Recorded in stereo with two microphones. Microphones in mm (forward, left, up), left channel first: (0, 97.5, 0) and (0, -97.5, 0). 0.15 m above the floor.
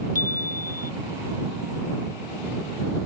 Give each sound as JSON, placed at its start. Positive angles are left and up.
{"t": 0.1, "sound": "a chime", "side_deg": -40}